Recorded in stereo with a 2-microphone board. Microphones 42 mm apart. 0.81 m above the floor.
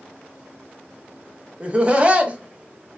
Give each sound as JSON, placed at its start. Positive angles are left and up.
{"t": 1.6, "sound": "laughter", "side_deg": -30, "distance_m": 0.5}